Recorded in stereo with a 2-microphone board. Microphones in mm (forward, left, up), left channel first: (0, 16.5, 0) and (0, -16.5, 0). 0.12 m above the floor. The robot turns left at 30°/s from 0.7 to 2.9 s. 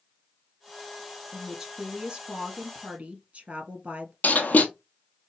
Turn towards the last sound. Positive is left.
turn(degrees=55)  # may be behind; listen again after turning